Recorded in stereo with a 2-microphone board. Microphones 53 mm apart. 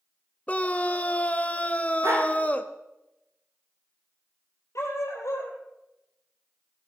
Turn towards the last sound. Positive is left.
turn(degrees=65)  # may be behind; listen again after turning